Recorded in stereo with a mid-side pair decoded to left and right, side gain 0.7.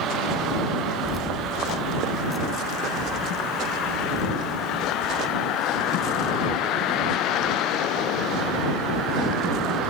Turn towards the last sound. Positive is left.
turn(degrees=10)